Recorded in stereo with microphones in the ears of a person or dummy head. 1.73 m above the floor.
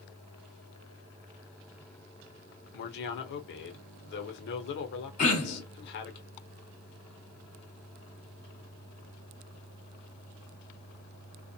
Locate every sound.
2.7 s a man speaking: 60° left (ahead or behind), 0.9 m
5.2 s throat clearing: 35° left (ahead or behind), 1.4 m